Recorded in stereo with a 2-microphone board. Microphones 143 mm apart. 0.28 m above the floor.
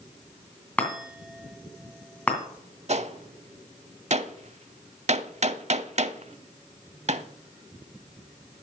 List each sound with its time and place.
0.8 s a chime: 10° left (ahead or behind), 2.5 m
2.9 s a gunshot: 50° right (ahead or behind), 0.6 m